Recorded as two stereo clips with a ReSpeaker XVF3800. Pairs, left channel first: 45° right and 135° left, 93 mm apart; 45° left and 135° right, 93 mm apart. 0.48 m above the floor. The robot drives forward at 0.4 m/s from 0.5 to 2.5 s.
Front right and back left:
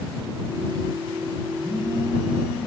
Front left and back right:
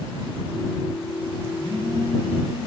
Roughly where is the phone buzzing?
Right.